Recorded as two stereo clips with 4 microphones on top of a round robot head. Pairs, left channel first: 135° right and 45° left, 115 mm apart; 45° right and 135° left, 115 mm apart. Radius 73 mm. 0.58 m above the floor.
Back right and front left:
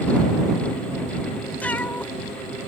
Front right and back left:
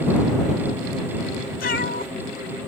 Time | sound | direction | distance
1.6 | a cat meowing | 60° right | ?